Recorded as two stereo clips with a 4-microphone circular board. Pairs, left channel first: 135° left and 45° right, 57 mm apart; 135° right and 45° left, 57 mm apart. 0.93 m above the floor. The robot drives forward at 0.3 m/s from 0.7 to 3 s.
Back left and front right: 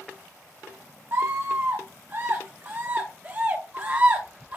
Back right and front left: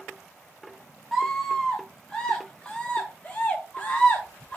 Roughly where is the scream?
Ahead right.